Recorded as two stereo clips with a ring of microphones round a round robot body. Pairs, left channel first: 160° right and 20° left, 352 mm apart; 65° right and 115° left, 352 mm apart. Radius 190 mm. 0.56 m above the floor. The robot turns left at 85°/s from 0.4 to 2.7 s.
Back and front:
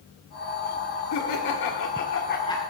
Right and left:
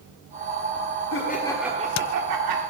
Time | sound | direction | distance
1.1 | laughter | 115° right | 1.3 m